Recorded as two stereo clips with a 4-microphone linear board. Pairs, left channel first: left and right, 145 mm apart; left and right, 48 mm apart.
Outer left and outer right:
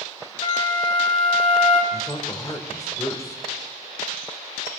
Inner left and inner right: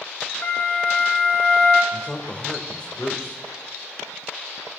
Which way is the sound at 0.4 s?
35° left (ahead or behind).